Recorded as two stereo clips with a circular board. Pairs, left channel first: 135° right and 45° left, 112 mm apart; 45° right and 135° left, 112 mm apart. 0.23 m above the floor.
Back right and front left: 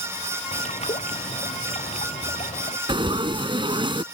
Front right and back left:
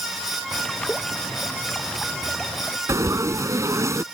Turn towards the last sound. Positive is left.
turn(degrees=75)